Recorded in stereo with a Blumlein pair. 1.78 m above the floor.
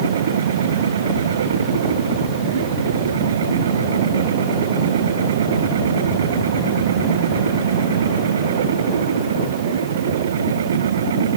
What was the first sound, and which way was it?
A machine running, 65° right.